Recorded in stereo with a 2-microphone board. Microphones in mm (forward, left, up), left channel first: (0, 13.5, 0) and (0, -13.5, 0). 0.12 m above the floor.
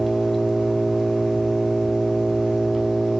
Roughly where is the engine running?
Centre.